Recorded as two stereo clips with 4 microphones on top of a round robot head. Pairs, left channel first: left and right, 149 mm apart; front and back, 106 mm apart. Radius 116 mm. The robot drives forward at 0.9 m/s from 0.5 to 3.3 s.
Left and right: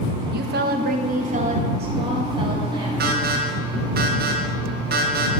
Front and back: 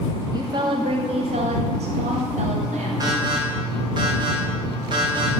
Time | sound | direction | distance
0.3 | a woman speaking | 115° right | 1.2 m
3.0 | an alarm | 115° right | 2.5 m